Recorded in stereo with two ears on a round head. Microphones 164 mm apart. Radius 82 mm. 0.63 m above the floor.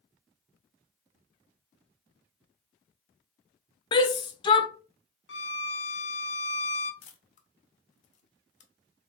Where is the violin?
65° left (ahead or behind), 0.7 m.